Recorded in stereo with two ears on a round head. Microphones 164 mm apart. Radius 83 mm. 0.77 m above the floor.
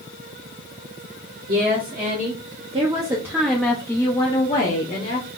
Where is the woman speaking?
55° right (ahead or behind), 1.9 m; by 5.3 s 60° left (ahead or behind), 1.6 m.